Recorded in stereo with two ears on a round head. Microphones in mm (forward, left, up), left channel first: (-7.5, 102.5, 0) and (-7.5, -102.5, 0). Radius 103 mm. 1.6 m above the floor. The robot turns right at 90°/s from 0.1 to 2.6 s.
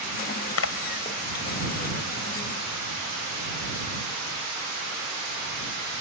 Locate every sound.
0.6 s a splash: 70° left (ahead or behind); by 4.2 s 65° right (ahead or behind)